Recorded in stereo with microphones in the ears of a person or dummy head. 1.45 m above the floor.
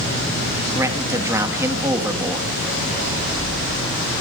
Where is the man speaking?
15° right (ahead or behind), 2.5 m.